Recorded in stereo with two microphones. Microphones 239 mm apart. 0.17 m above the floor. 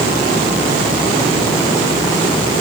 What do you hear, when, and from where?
Only background noise.